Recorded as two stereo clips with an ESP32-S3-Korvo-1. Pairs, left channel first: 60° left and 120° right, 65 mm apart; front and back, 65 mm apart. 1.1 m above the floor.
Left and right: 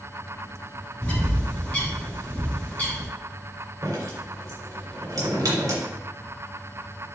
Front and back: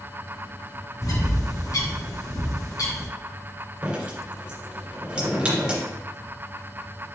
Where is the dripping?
105° right, 3 m.